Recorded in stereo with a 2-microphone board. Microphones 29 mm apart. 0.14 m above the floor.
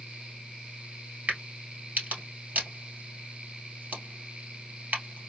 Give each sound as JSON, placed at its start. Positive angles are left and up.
{"t": 1.3, "sound": "a crack", "side_deg": -65, "distance_m": 2.0}